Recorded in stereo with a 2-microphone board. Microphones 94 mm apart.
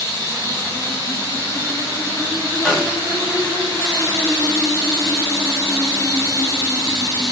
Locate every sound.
0.0 s running water: 35° left (ahead or behind), 1.7 m
2.6 s a snare drum: 10° left (ahead or behind), 1.5 m